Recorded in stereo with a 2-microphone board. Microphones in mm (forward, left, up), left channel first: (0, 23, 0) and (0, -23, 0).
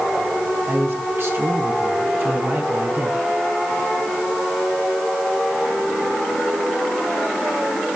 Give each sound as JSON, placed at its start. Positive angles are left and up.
{"t": 0.7, "sound": "a man speaking", "side_deg": -60, "distance_m": 5.0}